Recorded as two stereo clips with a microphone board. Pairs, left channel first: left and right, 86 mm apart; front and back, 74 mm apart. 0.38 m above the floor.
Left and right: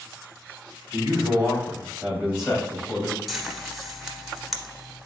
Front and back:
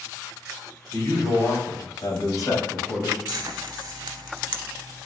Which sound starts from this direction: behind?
Frying, at 3.3 s.